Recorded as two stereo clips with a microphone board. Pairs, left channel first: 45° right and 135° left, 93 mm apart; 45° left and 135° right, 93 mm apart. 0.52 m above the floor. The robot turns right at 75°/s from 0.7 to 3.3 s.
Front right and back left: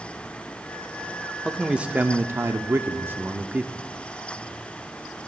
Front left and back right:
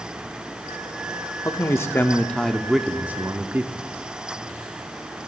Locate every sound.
1.4 s a man speaking: 45° left, 0.8 m; by 3.9 s 175° right, 0.8 m